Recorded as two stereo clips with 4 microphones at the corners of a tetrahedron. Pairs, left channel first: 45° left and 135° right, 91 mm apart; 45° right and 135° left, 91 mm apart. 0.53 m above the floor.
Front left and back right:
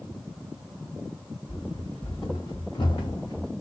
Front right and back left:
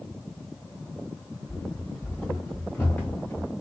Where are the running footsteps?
35° left, 3 m; by 3.5 s 20° left, 1.3 m.